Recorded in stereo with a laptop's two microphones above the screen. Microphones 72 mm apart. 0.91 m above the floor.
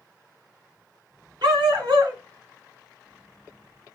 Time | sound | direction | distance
1.4 | a dog barking | 75° right (ahead or behind) | 2 m